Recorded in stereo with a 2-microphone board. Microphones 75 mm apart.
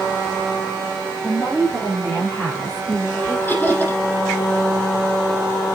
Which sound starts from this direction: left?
Laughter, at 3.5 s.